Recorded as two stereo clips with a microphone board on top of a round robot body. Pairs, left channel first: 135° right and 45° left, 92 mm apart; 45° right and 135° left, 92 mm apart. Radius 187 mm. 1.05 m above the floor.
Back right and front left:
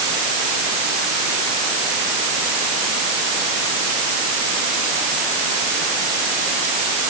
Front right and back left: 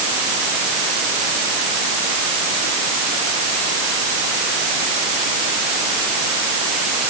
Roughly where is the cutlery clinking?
No cutlery clinking in this recording.